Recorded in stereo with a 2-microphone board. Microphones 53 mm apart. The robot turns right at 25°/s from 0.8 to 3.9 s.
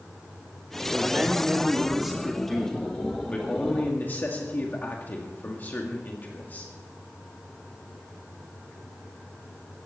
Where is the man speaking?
35° right, 1.9 m; by 6.7 s 40° left, 1.9 m.